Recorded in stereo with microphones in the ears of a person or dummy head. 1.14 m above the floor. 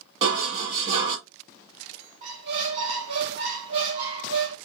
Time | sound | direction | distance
0.2 | dishes clattering | 40° right (ahead or behind) | 1.1 m
2.2 | a squeak | 40° right (ahead or behind) | 1.2 m